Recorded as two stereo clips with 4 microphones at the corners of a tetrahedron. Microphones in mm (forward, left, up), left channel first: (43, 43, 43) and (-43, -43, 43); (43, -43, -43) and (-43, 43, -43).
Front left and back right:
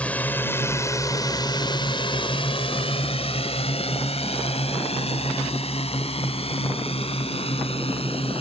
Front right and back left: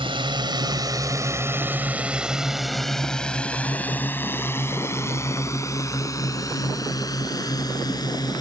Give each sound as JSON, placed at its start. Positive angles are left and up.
{"t": 0.0, "sound": "a drone", "azimuth_deg": 120}